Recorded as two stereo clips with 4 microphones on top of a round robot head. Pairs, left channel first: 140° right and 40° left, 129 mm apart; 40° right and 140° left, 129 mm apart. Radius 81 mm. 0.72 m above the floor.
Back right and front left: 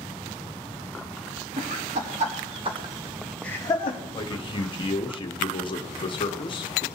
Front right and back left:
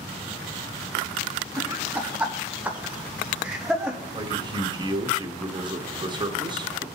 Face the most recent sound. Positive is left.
turn(degrees=180)